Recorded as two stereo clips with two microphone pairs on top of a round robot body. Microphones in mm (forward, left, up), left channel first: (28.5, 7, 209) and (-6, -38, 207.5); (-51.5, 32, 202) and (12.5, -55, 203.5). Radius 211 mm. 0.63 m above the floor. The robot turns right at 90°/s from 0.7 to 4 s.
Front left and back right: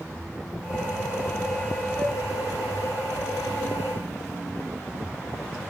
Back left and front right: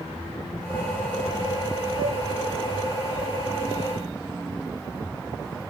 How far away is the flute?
About 1.4 m.